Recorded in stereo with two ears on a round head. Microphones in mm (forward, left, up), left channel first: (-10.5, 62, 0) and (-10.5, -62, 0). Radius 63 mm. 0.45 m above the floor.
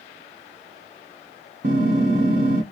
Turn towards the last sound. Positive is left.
turn(degrees=-55)  # may be behind; listen again after turning